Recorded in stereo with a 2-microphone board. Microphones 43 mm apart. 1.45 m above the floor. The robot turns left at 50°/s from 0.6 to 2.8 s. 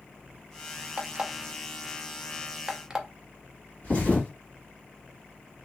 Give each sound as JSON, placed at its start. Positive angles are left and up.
{"t": 1.0, "sound": "an alarm clock", "side_deg": -25, "distance_m": 0.6}
{"t": 3.8, "sound": "a thud", "side_deg": 35, "distance_m": 1.8}